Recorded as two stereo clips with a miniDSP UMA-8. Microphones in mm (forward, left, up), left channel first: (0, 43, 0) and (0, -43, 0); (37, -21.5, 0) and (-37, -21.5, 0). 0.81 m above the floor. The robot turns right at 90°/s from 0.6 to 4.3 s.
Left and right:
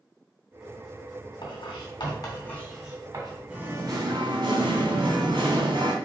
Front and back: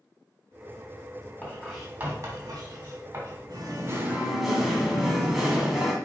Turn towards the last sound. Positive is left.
turn(degrees=-95)